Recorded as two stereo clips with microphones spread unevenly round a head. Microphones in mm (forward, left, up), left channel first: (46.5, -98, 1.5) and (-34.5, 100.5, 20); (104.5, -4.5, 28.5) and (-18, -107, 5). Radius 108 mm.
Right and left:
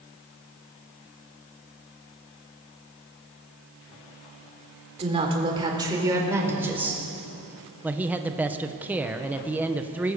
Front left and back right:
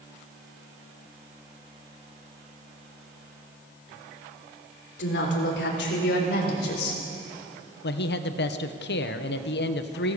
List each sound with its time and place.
5.0 s a woman speaking: 50° left, 4 m; by 7.0 s 30° left, 5.5 m
7.8 s a man speaking: 30° left, 1.3 m